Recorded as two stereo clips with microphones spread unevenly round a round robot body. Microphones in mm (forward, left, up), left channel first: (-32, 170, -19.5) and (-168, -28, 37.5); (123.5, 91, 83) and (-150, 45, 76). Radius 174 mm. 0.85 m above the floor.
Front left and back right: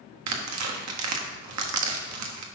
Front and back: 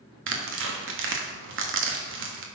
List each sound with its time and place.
0.3 s tearing paper: 125° right, 1.4 m